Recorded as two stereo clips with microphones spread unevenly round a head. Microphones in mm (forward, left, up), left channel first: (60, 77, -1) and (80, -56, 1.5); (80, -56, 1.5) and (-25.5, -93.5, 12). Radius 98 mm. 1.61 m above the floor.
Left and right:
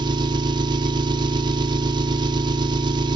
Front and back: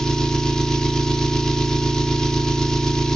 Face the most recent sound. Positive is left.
turn(degrees=-70)